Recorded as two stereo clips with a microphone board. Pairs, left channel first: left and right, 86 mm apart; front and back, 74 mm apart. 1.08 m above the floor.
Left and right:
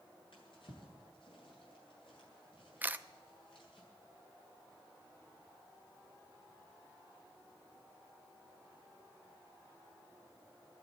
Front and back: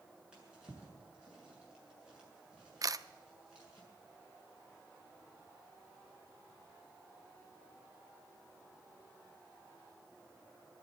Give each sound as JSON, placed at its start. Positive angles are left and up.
{"t": 0.3, "sound": "a drawer", "azimuth_deg": 105, "distance_m": 6.5}
{"t": 2.8, "sound": "a camera shutter", "azimuth_deg": -155, "distance_m": 0.5}